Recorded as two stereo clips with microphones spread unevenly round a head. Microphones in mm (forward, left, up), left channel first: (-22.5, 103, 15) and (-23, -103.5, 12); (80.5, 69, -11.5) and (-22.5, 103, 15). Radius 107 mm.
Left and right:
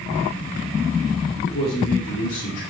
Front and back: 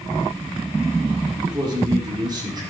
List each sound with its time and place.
1.5 s a man speaking: 110° left, 3.5 m; by 2.6 s 105° left, 5 m